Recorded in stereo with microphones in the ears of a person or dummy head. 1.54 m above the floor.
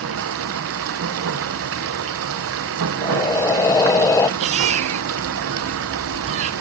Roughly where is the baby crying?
Right.